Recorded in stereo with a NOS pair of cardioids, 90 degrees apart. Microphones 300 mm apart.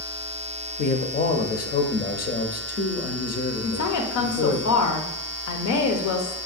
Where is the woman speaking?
70° left, 0.7 m.